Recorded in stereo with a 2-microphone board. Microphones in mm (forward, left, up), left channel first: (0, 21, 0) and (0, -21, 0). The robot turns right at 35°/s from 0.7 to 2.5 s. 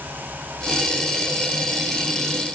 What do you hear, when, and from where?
Only background noise.